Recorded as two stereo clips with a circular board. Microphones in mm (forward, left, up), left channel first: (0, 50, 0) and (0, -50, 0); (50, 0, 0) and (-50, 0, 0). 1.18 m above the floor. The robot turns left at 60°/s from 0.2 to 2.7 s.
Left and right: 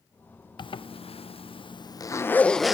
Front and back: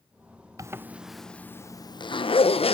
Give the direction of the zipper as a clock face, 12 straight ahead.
8 o'clock.